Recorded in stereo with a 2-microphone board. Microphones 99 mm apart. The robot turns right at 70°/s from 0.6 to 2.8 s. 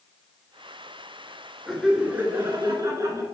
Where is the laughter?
175° left, 1.4 m; by 3.2 s 105° right, 1.4 m.